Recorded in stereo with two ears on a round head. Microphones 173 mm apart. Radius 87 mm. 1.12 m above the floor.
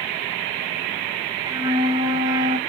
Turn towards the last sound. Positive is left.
turn(degrees=-20)  # may be behind; listen again after turning